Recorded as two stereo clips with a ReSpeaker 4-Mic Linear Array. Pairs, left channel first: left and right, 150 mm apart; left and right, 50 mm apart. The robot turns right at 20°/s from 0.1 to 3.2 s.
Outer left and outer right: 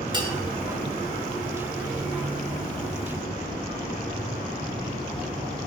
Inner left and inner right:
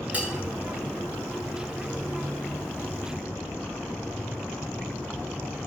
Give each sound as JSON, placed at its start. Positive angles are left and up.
{"t": 0.1, "sound": "a bell", "side_deg": -30, "distance_m": 1.6}